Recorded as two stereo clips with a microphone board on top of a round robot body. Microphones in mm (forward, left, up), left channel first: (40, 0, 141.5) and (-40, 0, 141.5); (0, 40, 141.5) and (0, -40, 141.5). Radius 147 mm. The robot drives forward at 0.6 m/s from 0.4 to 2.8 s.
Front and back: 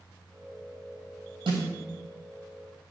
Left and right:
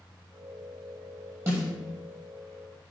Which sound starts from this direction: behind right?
A snare drum, at 1.5 s.